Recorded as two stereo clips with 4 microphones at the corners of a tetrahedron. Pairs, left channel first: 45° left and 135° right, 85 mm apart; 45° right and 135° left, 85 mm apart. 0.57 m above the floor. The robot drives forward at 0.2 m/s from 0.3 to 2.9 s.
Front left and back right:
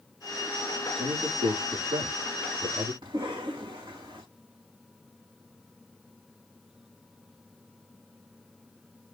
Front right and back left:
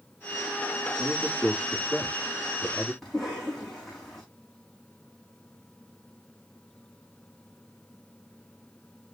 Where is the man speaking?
130° right, 7 m; by 2.9 s 135° right, 7 m.